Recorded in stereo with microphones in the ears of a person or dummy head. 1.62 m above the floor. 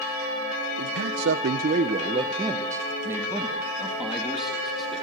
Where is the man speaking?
80° right, 1.2 m; by 5.0 s 5° left (ahead or behind), 4 m.